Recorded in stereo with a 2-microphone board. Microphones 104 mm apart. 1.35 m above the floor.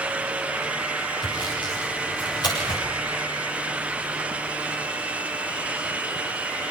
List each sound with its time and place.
1.2 s sawing: 40° left (ahead or behind), 7.5 m